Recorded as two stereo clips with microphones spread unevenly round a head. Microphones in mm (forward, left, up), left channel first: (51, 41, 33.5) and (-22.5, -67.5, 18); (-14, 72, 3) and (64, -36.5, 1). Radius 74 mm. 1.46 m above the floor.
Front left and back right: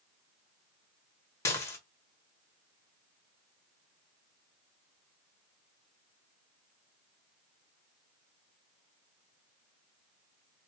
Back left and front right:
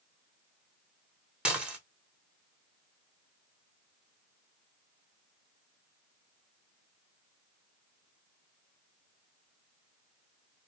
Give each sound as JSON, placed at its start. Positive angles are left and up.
{"t": 1.4, "sound": "dishes clattering", "azimuth_deg": 25, "distance_m": 0.7}